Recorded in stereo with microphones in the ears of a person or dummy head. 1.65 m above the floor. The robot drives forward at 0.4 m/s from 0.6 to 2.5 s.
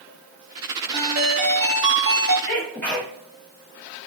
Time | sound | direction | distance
0.9 | a ringtone | 65° right (ahead or behind) | 1.5 m
2.5 | a sneeze | 10° left (ahead or behind) | 1.8 m